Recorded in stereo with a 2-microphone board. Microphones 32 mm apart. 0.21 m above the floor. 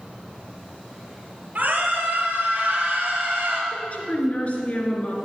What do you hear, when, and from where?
1.6 s a scream: 50° right (ahead or behind), 5 m; by 3.6 s 40° right (ahead or behind), 3.5 m
3.7 s a woman speaking: 40° left (ahead or behind), 2.5 m